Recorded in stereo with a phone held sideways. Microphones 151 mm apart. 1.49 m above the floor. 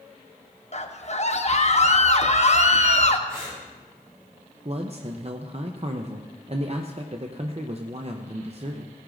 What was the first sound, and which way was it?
A scream, 50° left (ahead or behind).